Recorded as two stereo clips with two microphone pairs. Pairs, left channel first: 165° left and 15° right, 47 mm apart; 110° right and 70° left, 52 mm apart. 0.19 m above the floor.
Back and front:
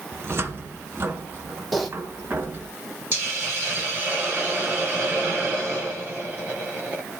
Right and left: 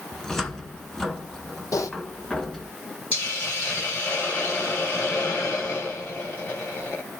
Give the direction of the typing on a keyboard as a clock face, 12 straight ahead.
3 o'clock.